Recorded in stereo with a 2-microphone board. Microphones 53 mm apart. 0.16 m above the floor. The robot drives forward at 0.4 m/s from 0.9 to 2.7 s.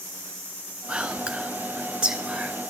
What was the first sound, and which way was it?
Whispering, 20° right (ahead or behind).